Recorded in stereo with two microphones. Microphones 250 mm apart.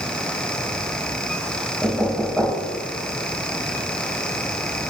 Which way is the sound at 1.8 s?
5° left (ahead or behind).